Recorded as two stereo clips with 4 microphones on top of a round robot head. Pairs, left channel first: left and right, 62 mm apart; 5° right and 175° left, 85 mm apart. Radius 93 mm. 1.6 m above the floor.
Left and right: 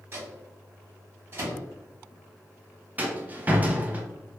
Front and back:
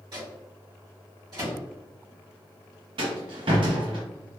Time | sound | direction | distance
0.1 | a microwave | 140° right | 1.6 m
3.0 | a rattle | 155° right | 0.6 m